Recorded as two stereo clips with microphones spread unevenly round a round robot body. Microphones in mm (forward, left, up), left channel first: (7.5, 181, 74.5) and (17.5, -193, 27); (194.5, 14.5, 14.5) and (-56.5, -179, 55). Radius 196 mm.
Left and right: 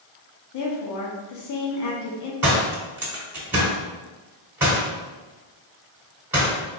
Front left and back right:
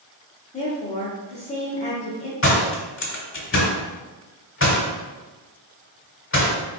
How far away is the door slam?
About 1.4 m.